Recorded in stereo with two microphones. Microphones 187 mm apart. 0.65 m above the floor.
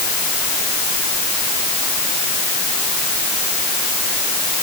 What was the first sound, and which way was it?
Only background noise.